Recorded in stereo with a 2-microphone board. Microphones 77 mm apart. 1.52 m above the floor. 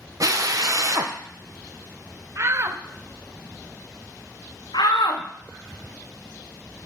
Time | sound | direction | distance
0.2 | a drill | 50° right (ahead or behind) | 0.6 m
2.4 | a shout | 35° right (ahead or behind) | 0.7 m
4.7 | a shout | 75° left (ahead or behind) | 0.7 m